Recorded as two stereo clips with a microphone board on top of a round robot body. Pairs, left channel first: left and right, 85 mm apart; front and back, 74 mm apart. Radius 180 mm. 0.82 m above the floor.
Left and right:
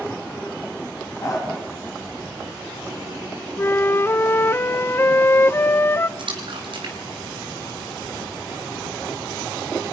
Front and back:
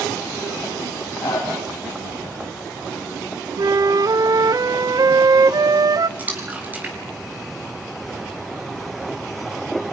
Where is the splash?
115° right, 4.5 m.